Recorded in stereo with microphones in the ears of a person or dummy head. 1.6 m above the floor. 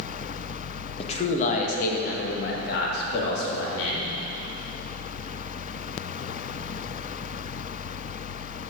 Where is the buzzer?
No buzzer in this recording.